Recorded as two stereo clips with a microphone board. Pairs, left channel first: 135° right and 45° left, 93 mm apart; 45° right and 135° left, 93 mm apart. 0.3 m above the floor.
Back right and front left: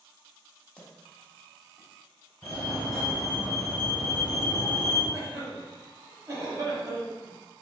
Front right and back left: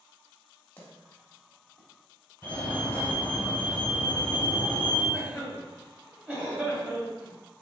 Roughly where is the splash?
Right.